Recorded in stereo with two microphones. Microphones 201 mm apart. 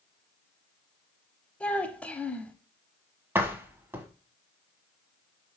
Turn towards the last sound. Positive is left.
turn(degrees=-10)  # may be behind; listen again after turning